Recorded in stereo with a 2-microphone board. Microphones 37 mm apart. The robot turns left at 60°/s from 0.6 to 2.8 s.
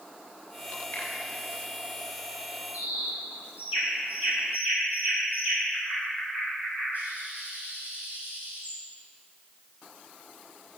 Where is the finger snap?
80° left, 4.5 m; by 1.1 s 75° left (ahead or behind), 4.5 m.